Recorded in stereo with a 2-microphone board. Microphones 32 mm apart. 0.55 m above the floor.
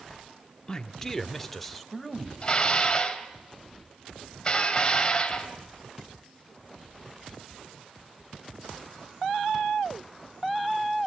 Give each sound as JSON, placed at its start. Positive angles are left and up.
{"t": 0.7, "sound": "a man speaking", "side_deg": 25, "distance_m": 1.0}
{"t": 2.4, "sound": "dishes clattering", "side_deg": 25, "distance_m": 2.0}